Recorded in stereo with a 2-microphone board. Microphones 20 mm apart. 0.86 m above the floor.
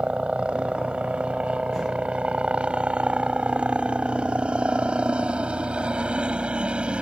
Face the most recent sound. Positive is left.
turn(degrees=-60)  # may be behind; listen again after turning